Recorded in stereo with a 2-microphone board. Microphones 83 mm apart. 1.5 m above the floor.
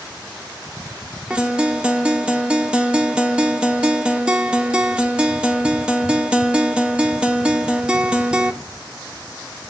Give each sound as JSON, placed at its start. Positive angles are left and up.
{"t": 1.3, "sound": "a guitar", "side_deg": -10, "distance_m": 0.8}